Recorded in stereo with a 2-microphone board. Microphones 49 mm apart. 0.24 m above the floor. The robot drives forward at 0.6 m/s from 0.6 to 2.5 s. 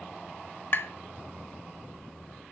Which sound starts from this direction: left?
Tapping, at 0.7 s.